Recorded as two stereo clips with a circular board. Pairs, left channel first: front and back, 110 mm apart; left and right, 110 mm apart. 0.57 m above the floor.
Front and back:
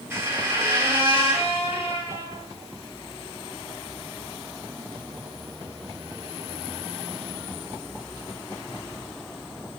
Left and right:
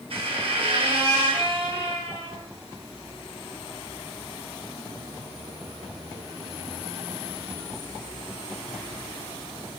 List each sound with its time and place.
0.1 s a squeak: 115° right, 0.6 m